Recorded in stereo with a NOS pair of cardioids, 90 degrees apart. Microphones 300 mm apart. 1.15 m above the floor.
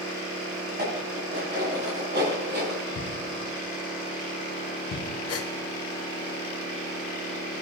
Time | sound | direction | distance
0.7 | dishes clattering | 35° right | 8 m
3.0 | a thud | 45° left | 5 m
5.3 | a gasp | 55° left | 1.7 m